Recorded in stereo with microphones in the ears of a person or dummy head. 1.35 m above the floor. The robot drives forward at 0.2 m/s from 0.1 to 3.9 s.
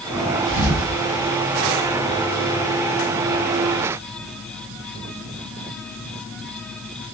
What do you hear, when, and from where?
0.5 s a thud: 45° right (ahead or behind), 2.5 m